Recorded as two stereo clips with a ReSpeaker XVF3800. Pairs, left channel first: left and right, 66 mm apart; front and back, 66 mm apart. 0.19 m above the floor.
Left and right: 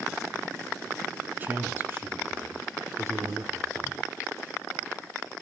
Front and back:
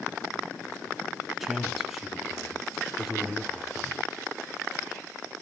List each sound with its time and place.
1.4 s a man speaking: 95° right, 1.8 m